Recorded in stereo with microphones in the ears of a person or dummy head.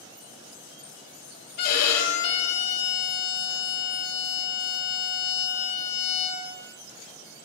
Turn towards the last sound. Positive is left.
turn(degrees=60)  # may be behind; listen again after turning